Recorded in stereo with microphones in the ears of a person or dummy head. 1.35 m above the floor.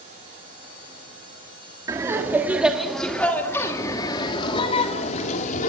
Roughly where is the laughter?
Centre.